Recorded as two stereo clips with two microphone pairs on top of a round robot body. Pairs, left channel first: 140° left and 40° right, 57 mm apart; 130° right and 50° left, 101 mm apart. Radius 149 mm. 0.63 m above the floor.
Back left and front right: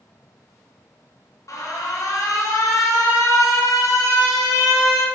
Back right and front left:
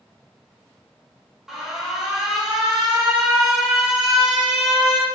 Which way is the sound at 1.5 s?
135° left.